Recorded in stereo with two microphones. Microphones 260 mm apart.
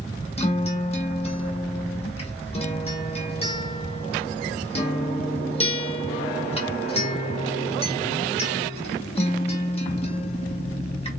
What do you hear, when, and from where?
0.4 s a guitar: 25° left (ahead or behind), 1.2 m